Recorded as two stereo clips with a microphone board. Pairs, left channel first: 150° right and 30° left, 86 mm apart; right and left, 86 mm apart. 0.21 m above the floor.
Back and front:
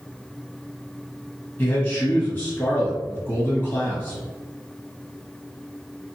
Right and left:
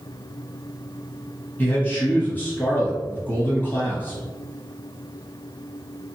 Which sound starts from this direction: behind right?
A man speaking, at 1.6 s.